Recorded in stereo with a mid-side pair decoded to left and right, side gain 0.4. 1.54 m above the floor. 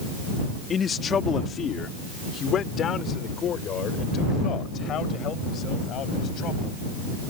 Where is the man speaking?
50° left; by 6.8 s 75° left.